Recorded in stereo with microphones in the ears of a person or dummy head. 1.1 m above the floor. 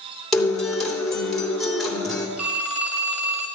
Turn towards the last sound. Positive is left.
turn(degrees=0)  # may be behind; listen again after turning